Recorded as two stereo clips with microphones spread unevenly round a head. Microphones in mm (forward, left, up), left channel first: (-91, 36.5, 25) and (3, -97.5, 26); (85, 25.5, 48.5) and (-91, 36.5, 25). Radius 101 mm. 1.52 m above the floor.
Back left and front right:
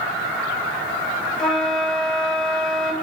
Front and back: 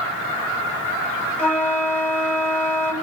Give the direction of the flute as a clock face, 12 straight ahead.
10 o'clock.